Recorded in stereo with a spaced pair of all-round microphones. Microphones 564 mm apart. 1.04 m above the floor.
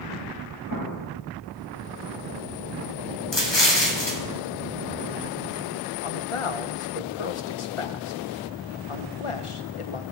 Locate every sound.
0.7 s an explosion: 50° left (ahead or behind), 4.5 m
3.3 s an explosion: 45° left (ahead or behind), 1.2 m
6.0 s a man speaking: 60° left (ahead or behind), 0.6 m